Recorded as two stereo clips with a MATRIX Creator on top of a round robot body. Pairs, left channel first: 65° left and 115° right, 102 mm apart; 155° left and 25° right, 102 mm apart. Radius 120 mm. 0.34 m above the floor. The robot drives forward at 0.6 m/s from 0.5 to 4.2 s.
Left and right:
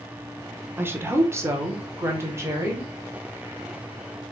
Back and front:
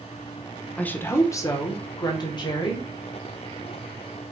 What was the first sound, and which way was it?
A woman speaking, 145° right.